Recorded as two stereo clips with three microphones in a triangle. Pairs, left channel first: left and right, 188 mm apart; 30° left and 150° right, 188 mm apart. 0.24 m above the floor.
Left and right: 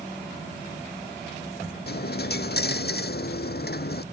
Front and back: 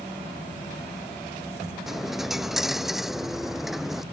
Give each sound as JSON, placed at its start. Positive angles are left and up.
{"t": 1.9, "sound": "a dropped coin", "azimuth_deg": 120}